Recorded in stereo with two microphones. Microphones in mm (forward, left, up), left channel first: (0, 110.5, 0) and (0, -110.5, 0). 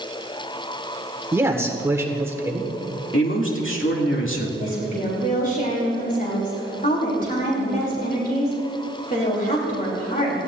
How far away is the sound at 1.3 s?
About 1.6 m.